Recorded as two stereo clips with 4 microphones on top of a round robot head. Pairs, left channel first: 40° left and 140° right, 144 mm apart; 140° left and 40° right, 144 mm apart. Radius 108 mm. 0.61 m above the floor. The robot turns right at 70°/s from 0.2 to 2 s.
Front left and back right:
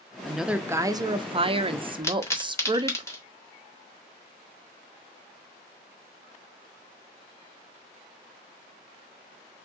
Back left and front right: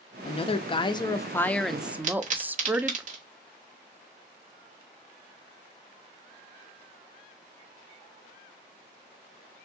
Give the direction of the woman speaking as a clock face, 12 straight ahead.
8 o'clock.